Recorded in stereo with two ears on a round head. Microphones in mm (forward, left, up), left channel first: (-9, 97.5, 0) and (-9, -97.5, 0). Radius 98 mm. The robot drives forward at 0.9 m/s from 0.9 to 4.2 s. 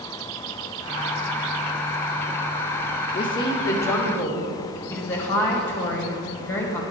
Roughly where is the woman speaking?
Left.